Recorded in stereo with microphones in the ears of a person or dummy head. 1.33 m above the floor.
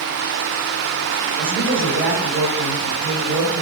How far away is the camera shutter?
No camera shutter in this recording.